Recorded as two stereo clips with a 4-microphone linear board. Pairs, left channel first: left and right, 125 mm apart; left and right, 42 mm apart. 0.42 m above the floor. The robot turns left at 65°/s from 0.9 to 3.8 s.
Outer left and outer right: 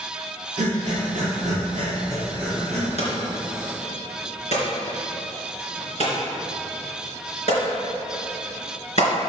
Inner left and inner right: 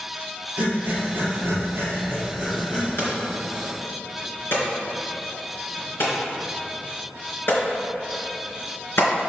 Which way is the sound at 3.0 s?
60° left (ahead or behind).